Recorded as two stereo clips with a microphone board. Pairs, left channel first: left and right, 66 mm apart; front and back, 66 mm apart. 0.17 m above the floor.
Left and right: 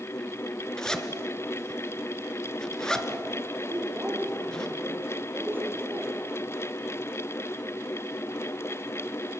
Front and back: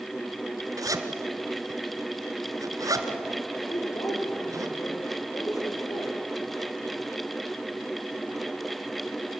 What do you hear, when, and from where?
0.8 s a zipper: 170° left, 1.8 m
3.7 s a woman speaking: 30° right, 7 m